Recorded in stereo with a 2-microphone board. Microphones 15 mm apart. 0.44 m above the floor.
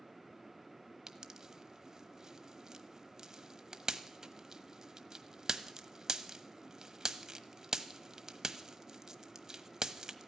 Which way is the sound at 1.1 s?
45° right (ahead or behind).